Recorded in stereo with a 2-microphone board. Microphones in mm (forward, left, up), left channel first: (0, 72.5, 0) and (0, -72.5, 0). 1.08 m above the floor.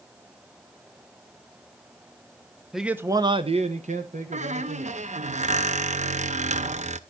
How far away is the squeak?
About 0.5 m.